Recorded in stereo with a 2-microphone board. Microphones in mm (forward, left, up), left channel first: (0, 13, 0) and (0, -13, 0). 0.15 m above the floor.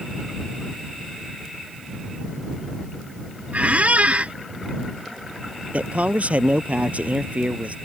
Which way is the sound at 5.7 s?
55° right (ahead or behind).